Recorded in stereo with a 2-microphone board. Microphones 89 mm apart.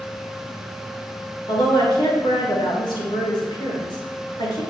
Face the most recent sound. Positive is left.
turn(degrees=65)  # may be behind; listen again after turning